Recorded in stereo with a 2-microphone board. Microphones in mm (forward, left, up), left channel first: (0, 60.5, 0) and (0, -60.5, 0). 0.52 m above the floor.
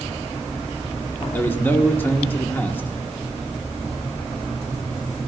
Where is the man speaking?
15° left (ahead or behind), 1.2 m.